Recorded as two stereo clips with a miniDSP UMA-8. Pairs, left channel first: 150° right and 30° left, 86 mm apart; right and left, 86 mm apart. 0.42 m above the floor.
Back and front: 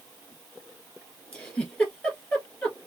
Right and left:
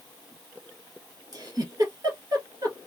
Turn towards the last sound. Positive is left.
turn(degrees=135)